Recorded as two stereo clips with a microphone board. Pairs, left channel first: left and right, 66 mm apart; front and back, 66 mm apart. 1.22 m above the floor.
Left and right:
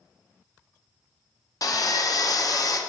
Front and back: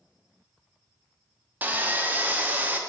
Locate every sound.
1.6 s sawing: 115° left, 0.7 m